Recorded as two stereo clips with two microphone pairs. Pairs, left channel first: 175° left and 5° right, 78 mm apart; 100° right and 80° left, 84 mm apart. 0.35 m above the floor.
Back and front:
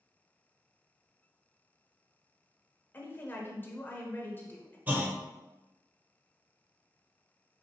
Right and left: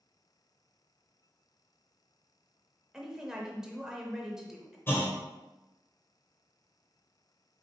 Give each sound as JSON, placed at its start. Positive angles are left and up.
{"t": 2.9, "sound": "a woman speaking", "azimuth_deg": 155, "distance_m": 0.8}
{"t": 4.9, "sound": "a clunk", "azimuth_deg": -60, "distance_m": 0.8}